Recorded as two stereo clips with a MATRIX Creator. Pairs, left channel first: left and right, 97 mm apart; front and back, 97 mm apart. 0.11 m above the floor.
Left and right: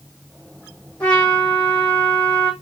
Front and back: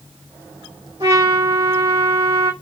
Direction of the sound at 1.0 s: 170° left.